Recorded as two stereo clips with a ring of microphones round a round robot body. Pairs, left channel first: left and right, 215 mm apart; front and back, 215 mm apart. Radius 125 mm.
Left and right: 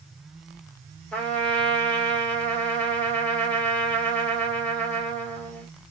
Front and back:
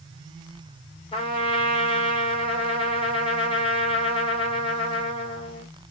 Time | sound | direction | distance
1.1 | a trumpet | 15° left | 1.5 m